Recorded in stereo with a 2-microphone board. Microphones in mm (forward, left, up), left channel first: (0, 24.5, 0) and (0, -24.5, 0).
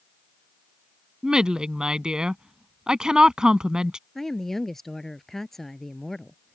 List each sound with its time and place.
1.2 s a woman speaking: 15° right (ahead or behind)
4.2 s a woman speaking: 5° left (ahead or behind)